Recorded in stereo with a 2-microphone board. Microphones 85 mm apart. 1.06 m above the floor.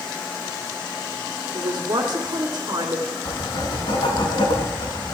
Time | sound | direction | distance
1.5 | a man speaking | 65° right (ahead or behind) | 2.5 m
3.2 | writing | 75° left (ahead or behind) | 4 m